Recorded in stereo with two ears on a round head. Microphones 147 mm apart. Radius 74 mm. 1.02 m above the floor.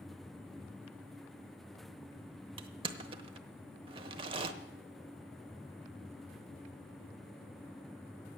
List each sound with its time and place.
2.6 s crushing: 30° right (ahead or behind), 0.9 m